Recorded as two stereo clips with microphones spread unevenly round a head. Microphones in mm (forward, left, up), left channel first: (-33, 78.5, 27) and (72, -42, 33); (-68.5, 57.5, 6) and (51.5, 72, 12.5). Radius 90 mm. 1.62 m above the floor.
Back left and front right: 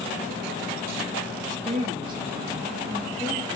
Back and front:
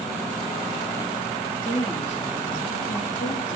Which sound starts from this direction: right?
A woman speaking, at 1.6 s.